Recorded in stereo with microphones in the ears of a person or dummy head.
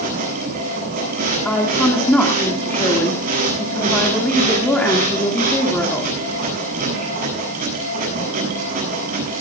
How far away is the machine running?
About 7.5 m.